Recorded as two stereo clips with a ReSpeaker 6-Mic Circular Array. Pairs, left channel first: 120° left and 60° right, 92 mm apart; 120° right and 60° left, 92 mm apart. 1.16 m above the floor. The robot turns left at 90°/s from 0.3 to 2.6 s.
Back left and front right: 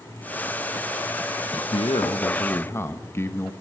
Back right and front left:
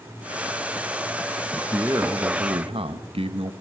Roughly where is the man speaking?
Behind left.